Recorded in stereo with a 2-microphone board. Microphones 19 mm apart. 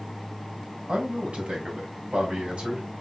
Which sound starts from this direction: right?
A man speaking, at 0.9 s.